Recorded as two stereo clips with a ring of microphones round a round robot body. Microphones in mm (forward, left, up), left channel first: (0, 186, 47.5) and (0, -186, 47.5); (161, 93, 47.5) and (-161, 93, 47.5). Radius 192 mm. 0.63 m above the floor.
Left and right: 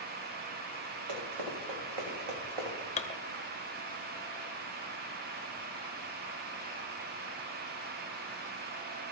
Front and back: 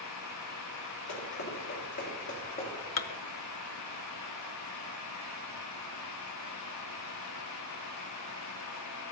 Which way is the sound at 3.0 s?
20° left.